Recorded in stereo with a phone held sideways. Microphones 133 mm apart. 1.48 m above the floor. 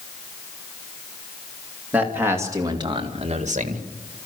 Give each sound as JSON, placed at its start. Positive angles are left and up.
{"t": 1.9, "sound": "a man speaking", "side_deg": -10, "distance_m": 3.0}